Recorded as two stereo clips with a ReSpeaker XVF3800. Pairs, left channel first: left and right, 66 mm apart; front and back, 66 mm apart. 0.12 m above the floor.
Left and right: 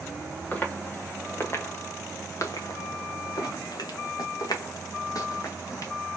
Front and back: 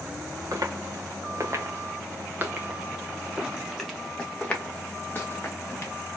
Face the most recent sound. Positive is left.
turn(degrees=50)